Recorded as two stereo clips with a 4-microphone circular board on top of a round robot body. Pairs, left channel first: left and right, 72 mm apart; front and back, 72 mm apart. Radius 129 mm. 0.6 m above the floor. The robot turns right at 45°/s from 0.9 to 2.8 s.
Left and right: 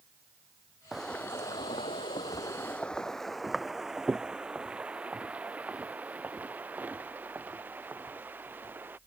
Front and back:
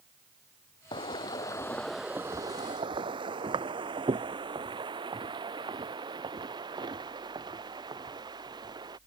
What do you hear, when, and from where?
0.9 s footsteps: straight ahead; by 9.0 s 155° right